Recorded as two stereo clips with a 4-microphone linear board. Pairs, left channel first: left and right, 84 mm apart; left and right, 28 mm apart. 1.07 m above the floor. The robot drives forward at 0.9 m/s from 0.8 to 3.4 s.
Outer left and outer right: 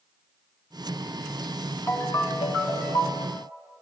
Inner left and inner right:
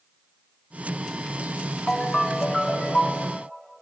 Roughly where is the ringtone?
Left.